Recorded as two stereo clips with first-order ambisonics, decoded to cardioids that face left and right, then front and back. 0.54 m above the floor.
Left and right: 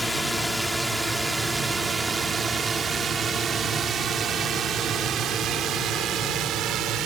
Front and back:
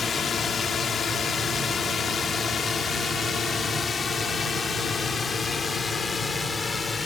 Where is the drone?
5° left; by 7.1 s 70° right.